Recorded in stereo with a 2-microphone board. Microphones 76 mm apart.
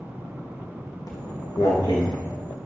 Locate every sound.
1.1 s footsteps: 55° left (ahead or behind), 3.5 m; by 2.6 s 70° left (ahead or behind), 4 m